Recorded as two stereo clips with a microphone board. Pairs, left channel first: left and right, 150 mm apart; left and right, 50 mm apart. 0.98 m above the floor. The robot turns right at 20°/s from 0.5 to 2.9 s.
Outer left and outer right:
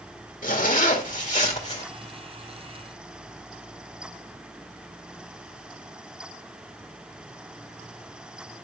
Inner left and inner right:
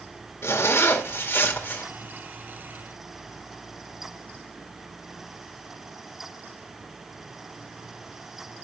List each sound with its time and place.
0.4 s a zipper: 65° left (ahead or behind), 2.0 m; by 1.9 s 45° left (ahead or behind), 2.0 m